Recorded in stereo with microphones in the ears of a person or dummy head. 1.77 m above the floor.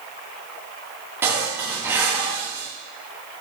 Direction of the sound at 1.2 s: 10° right (ahead or behind).